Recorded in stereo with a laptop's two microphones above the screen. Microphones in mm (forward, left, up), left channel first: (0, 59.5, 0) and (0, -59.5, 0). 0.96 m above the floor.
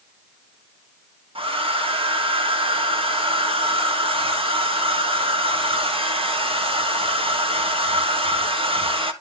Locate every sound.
1.4 s a hair dryer: 55° right (ahead or behind), 1.5 m